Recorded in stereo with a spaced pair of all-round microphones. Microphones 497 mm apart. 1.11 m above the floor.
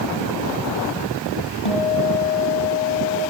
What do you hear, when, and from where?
1.6 s a guitar: 80° left, 7 m